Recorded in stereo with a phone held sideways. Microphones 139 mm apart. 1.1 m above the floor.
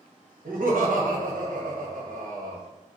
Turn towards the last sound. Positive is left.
turn(degrees=-80)